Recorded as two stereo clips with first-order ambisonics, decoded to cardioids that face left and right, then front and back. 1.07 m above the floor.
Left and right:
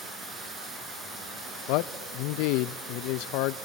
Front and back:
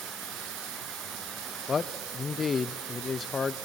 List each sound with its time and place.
0.0 s running water: 155° right, 9.5 m
1.7 s a man speaking: 70° left, 0.5 m